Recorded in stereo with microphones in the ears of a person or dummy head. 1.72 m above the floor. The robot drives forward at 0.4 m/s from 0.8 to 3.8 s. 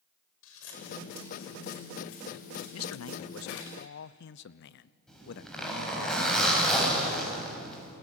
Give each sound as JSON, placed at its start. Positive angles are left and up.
{"t": 0.4, "sound": "scissors", "side_deg": 75, "distance_m": 5.5}
{"t": 2.7, "sound": "a man speaking", "side_deg": 85, "distance_m": 0.5}
{"t": 5.1, "sound": "a zipper", "side_deg": 10, "distance_m": 8.0}